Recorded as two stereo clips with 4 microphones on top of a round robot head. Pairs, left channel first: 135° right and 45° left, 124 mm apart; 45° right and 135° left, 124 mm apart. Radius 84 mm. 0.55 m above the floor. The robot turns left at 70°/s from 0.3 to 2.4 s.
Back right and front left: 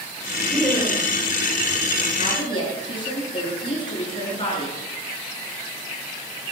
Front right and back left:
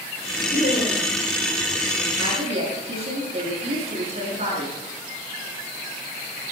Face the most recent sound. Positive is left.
turn(degrees=175)